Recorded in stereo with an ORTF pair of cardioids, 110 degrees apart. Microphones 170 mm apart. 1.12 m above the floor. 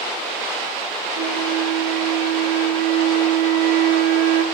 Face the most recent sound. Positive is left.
turn(degrees=-65)